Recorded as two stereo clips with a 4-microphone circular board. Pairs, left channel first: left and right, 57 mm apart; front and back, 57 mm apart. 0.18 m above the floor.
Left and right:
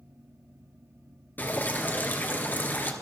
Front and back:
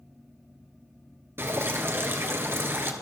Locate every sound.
1.4 s dripping: 140° left, 2 m